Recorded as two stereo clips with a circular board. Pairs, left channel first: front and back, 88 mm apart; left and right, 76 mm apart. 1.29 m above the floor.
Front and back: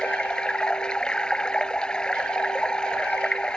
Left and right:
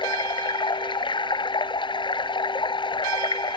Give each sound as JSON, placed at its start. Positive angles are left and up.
{"t": 0.0, "sound": "running water", "azimuth_deg": 80}